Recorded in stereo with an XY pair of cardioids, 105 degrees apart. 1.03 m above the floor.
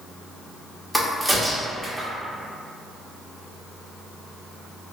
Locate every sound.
0.9 s a crack: 5° right, 0.8 m